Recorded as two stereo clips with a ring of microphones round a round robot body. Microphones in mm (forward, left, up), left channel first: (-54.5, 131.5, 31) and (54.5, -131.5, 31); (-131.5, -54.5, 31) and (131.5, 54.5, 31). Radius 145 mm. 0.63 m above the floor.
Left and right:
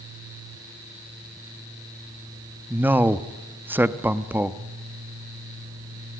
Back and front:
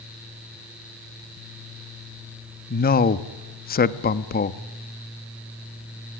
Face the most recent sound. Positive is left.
turn(degrees=-145)